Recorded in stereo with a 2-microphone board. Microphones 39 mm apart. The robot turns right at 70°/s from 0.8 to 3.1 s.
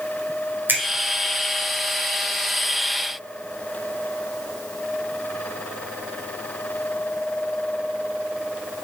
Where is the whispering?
I don't hear whispering.